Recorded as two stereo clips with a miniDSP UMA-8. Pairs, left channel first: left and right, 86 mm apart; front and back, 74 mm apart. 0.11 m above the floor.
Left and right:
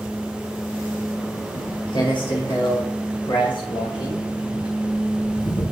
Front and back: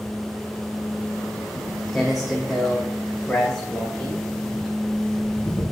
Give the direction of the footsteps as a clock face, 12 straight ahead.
9 o'clock.